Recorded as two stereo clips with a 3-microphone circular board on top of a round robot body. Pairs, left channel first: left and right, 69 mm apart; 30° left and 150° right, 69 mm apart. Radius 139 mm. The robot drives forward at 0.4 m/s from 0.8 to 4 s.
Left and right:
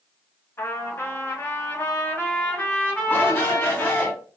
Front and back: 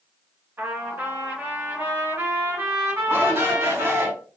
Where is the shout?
150° left, 4 m; by 4.1 s 155° left, 4 m.